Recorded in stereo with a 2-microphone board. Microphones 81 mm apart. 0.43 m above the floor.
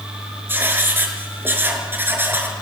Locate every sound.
0.5 s writing: 25° right (ahead or behind), 4.5 m